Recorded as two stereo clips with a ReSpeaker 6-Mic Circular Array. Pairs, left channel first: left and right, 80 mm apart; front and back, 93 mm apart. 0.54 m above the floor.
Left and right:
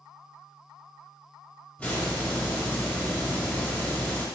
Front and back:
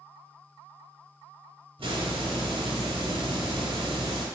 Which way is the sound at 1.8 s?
165° left.